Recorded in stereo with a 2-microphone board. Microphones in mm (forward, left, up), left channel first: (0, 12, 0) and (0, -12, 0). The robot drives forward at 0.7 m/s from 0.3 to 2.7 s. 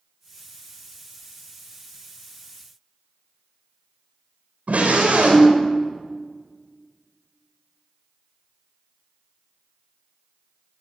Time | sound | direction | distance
4.7 | a scream | 85° right | 6 m